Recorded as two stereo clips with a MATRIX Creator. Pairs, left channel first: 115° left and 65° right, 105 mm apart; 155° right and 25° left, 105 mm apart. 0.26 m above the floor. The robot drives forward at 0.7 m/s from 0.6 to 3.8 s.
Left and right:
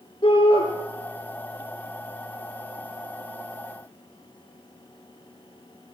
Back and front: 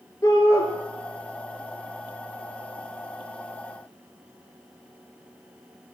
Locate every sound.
0.2 s a shout: 145° left, 4 m